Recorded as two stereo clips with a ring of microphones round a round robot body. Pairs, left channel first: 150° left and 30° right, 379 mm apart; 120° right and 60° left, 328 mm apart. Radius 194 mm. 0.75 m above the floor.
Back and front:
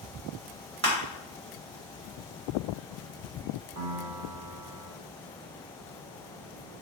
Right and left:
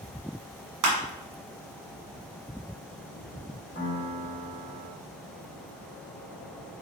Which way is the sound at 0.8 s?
35° left.